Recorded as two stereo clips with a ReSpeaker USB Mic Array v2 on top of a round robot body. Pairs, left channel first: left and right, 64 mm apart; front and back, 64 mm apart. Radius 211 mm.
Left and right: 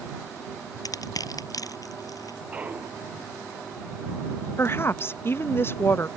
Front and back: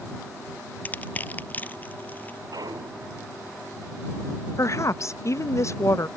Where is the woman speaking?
40° left.